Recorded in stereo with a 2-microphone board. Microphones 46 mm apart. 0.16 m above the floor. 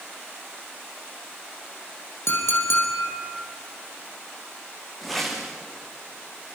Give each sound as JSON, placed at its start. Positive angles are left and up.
{"t": 2.3, "sound": "a clink", "side_deg": 65, "distance_m": 5.5}
{"t": 5.0, "sound": "a whoosh", "side_deg": 0, "distance_m": 4.0}